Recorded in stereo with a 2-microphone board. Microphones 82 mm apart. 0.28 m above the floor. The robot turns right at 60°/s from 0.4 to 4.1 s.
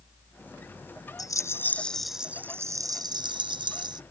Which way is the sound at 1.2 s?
125° left.